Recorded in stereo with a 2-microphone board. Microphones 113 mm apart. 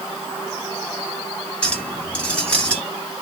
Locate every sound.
1.6 s a clink: 10° left (ahead or behind), 1.9 m